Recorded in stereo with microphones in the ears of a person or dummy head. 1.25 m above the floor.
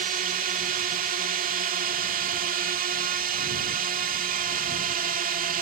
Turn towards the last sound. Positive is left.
turn(degrees=-40)  # may be behind; listen again after turning